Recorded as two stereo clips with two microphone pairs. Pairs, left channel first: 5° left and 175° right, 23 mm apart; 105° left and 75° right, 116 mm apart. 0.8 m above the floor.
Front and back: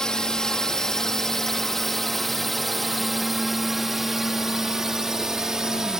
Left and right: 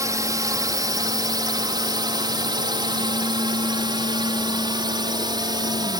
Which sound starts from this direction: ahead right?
A drone, at 0.0 s.